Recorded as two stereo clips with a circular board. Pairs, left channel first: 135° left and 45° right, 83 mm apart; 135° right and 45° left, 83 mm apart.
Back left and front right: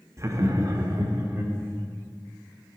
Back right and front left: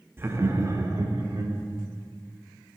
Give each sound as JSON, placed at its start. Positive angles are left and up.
{"t": 0.2, "sound": "laughter", "azimuth_deg": -10, "distance_m": 0.7}